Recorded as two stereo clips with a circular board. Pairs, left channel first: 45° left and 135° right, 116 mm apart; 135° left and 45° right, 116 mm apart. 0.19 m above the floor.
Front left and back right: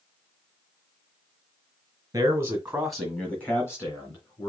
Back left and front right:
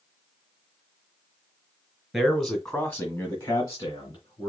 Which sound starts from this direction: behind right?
A man speaking, at 2.1 s.